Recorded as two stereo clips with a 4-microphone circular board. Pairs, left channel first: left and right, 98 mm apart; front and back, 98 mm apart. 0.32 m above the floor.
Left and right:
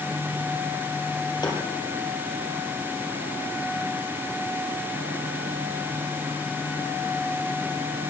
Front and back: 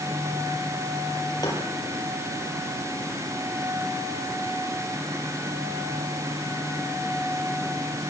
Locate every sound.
1.4 s tapping: 50° left, 8.5 m